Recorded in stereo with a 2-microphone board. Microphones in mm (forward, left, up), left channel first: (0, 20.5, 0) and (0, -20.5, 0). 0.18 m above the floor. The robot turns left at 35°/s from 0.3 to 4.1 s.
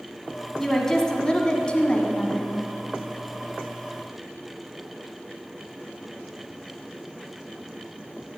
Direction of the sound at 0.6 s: 10° left (ahead or behind).